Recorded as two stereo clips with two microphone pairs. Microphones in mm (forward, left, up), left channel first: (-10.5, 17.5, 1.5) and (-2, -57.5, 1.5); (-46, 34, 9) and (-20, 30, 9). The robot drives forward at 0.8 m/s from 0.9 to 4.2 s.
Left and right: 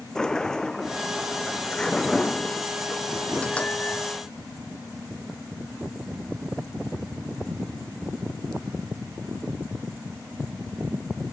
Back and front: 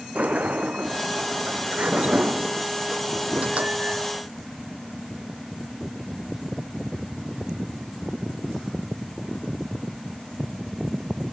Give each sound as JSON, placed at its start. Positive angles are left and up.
{"t": 0.1, "sound": "a sliding door", "azimuth_deg": 15}